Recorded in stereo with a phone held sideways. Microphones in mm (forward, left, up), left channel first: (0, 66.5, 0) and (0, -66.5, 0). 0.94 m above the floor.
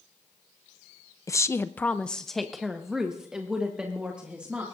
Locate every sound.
1.3 s a woman speaking: 25° left (ahead or behind), 0.5 m; by 4.6 s 10° right (ahead or behind), 2 m